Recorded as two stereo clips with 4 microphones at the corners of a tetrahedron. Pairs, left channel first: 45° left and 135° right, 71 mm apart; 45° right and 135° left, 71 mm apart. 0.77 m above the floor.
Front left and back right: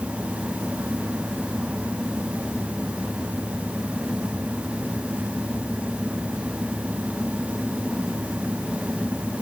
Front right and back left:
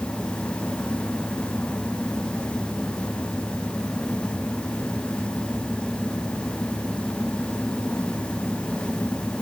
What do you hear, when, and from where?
Only background noise.